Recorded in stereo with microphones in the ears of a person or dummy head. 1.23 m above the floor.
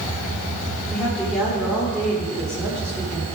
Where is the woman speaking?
Centre (ahead or behind), 3.5 m.